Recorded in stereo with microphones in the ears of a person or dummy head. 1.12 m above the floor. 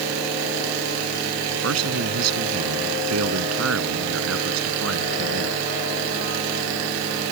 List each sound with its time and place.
1.6 s a man speaking: 80° right